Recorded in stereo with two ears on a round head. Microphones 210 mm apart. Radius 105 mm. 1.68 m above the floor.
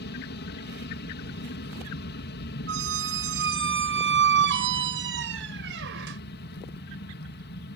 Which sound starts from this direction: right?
A squeak, at 2.7 s.